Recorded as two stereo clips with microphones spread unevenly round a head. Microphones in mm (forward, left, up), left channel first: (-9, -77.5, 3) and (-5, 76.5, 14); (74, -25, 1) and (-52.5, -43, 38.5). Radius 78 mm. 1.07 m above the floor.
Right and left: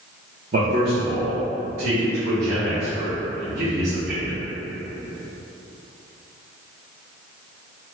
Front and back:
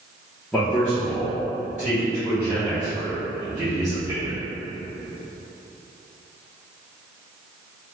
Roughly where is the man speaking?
Left.